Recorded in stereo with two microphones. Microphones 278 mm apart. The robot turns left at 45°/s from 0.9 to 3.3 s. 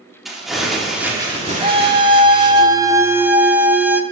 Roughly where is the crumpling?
Ahead.